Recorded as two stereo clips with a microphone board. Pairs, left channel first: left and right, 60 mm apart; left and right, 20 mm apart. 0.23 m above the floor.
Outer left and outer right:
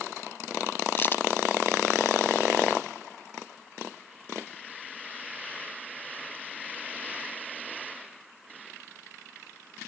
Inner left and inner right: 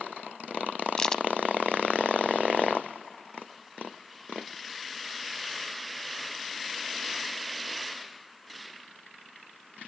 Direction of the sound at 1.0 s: 40° left (ahead or behind).